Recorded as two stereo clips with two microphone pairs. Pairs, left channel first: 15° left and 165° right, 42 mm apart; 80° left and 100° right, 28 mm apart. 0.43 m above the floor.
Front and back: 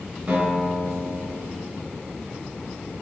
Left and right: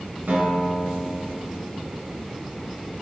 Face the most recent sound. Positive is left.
turn(degrees=-125)